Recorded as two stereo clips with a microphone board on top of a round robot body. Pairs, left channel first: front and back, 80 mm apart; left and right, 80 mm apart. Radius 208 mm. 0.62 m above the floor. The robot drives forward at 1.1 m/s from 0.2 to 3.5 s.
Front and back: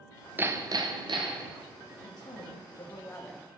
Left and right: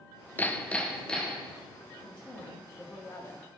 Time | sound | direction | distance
0.4 | hammering | 135° left | 0.6 m
2.0 | a woman speaking | 15° left | 1.8 m